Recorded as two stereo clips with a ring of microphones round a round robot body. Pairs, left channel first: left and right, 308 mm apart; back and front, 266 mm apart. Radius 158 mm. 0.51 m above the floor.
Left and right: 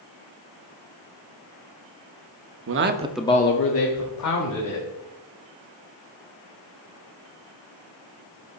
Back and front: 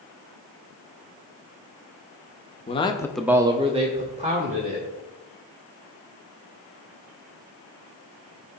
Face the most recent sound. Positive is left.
turn(degrees=65)